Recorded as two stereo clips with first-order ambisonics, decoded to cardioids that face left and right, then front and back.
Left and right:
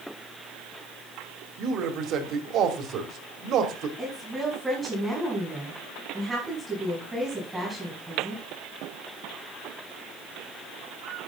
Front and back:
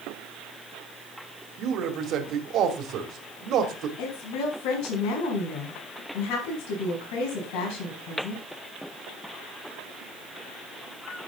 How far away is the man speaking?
About 2 m.